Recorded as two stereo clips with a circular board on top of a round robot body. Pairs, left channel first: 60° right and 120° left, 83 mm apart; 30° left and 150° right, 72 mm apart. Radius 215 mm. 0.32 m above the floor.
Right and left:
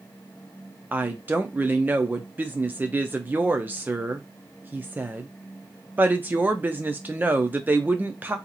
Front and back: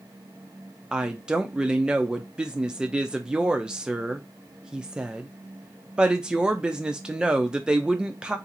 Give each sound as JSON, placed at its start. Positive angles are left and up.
{"t": 0.9, "sound": "a woman speaking", "azimuth_deg": 150, "distance_m": 0.8}